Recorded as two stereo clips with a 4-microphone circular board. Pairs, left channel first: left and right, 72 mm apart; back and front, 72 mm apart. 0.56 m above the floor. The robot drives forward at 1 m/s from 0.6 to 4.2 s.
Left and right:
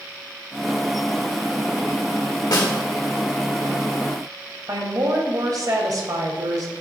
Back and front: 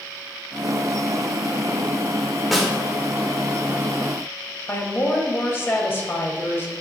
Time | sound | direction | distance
2.5 | a snare drum | 90° left | 2 m
4.7 | a woman speaking | 125° right | 2 m